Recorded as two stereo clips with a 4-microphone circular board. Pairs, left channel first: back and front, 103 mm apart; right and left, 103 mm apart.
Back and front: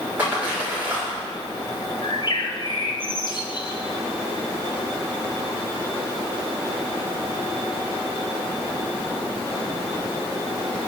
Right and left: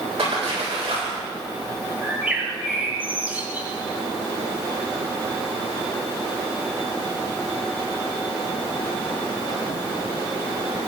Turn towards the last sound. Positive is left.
turn(degrees=160)